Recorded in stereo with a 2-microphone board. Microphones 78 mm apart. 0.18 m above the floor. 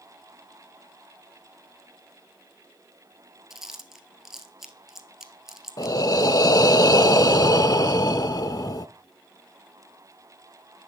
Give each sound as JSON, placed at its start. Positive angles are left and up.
{"t": 3.5, "sound": "chewing", "side_deg": -5, "distance_m": 1.2}
{"t": 5.8, "sound": "breathing", "side_deg": 55, "distance_m": 0.6}